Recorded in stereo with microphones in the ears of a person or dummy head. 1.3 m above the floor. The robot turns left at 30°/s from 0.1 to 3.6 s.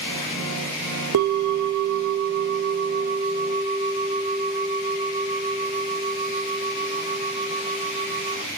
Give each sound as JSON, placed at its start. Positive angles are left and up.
{"t": 1.1, "sound": "a bell", "azimuth_deg": -80, "distance_m": 0.7}